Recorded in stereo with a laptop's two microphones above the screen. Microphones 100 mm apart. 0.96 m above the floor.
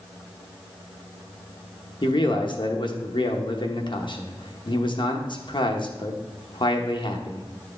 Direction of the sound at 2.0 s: 55° left (ahead or behind).